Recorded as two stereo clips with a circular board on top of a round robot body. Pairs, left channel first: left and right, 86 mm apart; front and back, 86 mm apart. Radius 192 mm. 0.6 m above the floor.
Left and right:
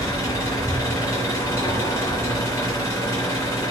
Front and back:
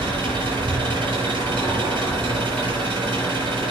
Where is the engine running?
145° left, 4.5 m.